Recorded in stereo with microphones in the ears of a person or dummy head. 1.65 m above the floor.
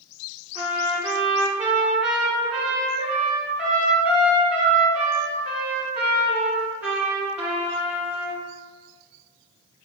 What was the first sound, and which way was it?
A trumpet, 10° right (ahead or behind).